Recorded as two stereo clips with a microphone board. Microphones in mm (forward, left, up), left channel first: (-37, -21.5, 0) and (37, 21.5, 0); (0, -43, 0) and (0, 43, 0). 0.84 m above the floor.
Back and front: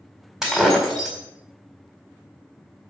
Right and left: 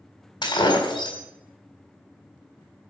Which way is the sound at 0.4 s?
55° right.